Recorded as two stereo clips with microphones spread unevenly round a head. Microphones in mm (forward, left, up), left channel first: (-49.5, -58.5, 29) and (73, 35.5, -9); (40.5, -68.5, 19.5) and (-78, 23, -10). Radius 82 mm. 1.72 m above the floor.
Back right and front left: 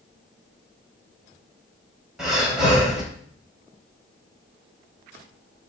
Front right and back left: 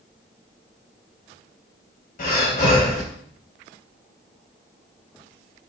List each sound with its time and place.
2.2 s breathing: 55° right, 3.5 m